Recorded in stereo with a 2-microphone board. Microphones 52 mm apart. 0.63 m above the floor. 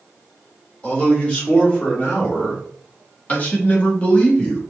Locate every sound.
0.8 s a man speaking: 25° left (ahead or behind), 2 m